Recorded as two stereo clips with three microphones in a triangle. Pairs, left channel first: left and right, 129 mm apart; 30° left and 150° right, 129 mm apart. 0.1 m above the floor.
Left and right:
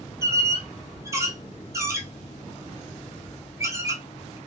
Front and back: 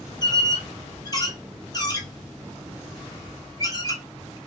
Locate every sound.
0.2 s a squeak: 25° right, 0.8 m